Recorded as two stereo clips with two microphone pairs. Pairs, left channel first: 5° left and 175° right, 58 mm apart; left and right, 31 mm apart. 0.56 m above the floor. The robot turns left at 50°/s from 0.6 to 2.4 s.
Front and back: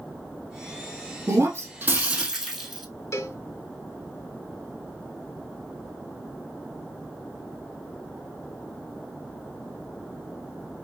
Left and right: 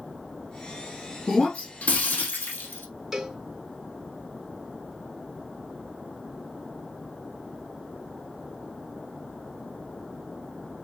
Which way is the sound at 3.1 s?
20° right.